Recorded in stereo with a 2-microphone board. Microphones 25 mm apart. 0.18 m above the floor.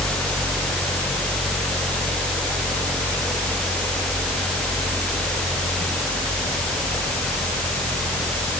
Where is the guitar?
No guitar in this recording.